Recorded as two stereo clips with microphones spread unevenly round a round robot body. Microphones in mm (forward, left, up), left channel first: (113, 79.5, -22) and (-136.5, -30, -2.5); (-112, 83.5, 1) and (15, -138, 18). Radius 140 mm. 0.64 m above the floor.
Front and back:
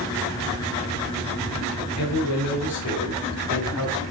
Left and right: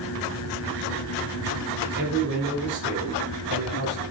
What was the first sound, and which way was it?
A man speaking, 10° right.